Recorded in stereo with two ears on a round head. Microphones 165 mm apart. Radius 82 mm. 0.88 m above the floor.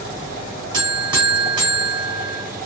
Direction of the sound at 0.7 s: 25° right (ahead or behind).